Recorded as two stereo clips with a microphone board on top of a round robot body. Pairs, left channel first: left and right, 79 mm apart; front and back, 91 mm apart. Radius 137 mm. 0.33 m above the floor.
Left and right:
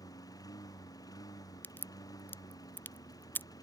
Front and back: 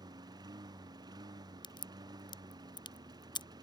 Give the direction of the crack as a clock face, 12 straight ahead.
11 o'clock.